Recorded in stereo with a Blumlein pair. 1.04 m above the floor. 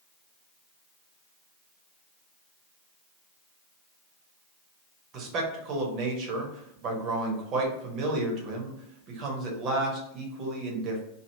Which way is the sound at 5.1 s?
35° right.